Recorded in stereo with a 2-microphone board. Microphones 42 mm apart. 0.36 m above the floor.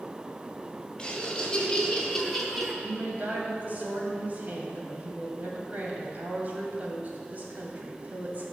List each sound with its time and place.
1.0 s laughter: 20° left (ahead or behind), 2.5 m; by 2.7 s centre (ahead or behind), 1.6 m
2.8 s a woman speaking: 40° right (ahead or behind), 2 m